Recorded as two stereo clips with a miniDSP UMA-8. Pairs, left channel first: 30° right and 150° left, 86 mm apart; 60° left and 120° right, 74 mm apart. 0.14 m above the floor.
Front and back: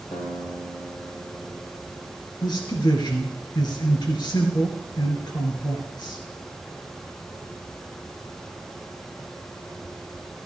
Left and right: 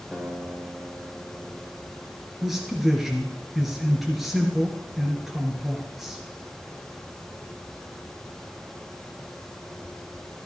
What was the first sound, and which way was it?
A guitar, 25° right.